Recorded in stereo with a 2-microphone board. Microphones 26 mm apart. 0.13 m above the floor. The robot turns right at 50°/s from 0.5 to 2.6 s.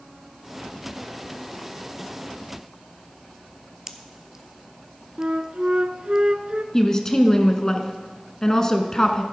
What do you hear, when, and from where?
3.9 s a pop: 20° right (ahead or behind), 0.7 m
5.2 s a flute: 45° right (ahead or behind), 0.5 m
6.7 s a woman speaking: 25° left (ahead or behind), 1.1 m